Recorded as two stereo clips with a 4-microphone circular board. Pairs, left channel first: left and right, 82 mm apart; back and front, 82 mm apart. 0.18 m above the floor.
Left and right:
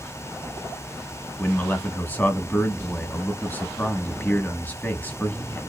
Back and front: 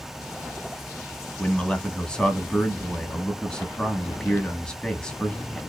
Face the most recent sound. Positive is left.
turn(degrees=115)